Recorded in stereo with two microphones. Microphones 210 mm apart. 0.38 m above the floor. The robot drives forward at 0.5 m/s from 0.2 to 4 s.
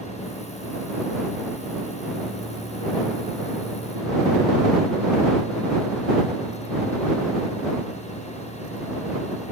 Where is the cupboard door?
No cupboard door in this recording.